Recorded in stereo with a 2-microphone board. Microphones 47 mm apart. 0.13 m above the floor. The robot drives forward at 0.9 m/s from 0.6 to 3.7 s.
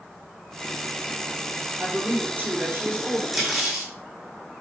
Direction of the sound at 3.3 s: 5° right (ahead or behind).